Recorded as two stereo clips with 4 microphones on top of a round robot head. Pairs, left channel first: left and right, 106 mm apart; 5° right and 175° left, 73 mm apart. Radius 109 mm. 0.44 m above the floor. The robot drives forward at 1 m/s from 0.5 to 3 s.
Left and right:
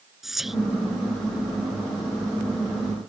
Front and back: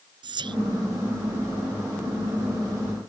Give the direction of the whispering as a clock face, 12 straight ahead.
6 o'clock.